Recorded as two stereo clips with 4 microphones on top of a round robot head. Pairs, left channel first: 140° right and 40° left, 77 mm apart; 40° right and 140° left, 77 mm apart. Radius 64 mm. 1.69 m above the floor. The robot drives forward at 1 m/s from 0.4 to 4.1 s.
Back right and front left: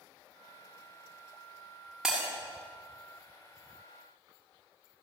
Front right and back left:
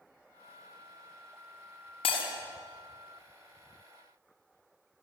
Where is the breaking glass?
45° right, 6.5 m.